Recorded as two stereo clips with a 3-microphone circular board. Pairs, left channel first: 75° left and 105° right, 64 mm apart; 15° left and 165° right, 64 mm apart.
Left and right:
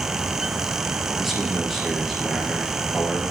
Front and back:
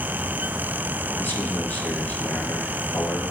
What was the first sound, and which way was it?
A man speaking, 20° right.